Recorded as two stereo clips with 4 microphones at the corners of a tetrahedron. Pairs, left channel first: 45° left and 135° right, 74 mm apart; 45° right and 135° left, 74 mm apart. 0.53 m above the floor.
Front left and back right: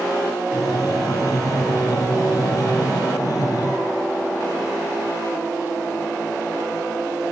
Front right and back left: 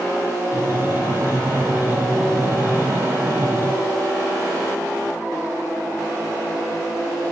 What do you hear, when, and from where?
0.5 s breathing: 80° left, 1.6 m